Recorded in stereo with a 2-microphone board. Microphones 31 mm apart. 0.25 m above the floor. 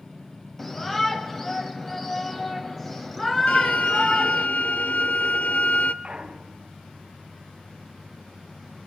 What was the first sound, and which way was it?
A shout, 10° left (ahead or behind).